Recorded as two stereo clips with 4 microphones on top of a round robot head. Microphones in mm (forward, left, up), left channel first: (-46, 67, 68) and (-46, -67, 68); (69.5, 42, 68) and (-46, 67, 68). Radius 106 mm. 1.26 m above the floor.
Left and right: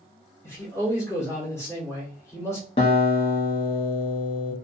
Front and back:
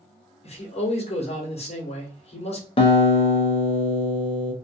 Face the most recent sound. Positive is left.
turn(degrees=30)